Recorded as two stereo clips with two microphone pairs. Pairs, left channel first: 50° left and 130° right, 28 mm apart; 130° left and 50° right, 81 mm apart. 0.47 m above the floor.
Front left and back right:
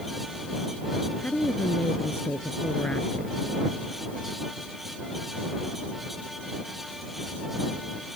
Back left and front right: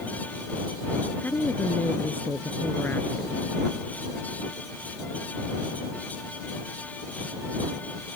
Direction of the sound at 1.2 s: 65° left.